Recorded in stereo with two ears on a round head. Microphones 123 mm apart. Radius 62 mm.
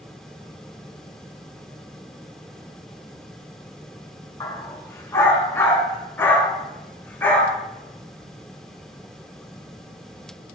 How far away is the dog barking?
About 2 m.